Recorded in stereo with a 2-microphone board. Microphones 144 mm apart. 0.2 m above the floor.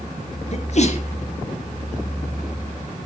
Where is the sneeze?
50° left (ahead or behind), 3.5 m.